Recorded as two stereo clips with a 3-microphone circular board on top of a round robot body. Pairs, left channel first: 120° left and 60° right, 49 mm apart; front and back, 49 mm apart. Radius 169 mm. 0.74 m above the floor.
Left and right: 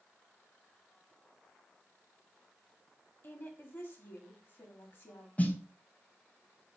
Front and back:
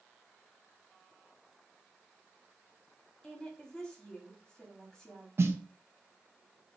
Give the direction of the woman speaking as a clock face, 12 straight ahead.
9 o'clock.